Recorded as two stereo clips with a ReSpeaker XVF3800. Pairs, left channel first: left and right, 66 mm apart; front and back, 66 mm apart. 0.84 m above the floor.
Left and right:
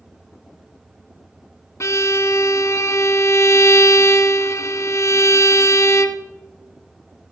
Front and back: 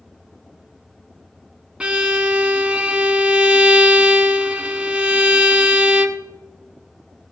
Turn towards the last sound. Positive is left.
turn(degrees=110)